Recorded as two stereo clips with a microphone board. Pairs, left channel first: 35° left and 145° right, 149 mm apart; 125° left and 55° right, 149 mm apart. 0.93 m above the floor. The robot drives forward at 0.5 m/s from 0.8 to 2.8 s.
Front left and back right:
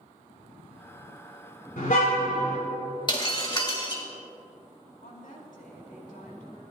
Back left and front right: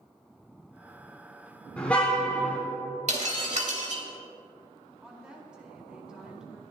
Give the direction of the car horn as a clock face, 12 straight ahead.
11 o'clock.